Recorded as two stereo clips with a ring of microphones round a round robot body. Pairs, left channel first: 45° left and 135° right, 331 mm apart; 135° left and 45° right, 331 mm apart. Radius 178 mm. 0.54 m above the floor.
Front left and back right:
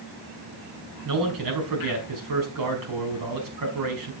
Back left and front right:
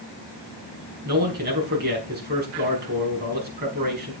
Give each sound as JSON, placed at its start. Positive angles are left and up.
{"t": 1.1, "sound": "a man speaking", "azimuth_deg": -105, "distance_m": 4.5}